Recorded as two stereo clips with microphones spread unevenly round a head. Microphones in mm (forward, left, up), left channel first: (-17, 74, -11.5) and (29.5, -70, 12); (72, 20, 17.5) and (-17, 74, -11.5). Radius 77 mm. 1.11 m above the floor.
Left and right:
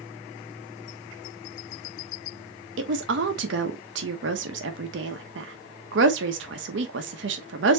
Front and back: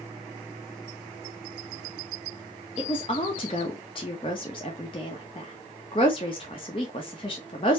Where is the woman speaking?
95° right, 0.9 m.